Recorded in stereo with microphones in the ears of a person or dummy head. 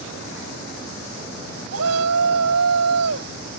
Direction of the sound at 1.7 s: 85° right.